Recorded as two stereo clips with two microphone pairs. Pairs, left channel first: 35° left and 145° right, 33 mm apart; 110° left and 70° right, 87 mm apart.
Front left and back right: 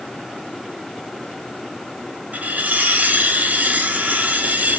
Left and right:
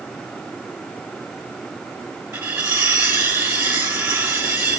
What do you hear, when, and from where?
2.3 s cutlery clinking: 135° right, 1.2 m